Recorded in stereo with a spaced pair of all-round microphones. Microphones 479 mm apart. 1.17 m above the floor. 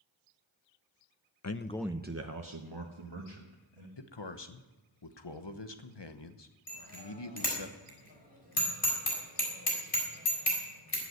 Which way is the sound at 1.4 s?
40° left (ahead or behind).